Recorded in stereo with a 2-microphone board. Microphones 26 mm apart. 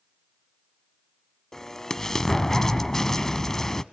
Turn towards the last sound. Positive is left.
turn(degrees=20)  # may be behind; listen again after turning